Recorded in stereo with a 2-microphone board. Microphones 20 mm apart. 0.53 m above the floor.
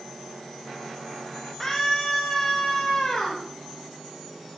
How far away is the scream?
About 3 m.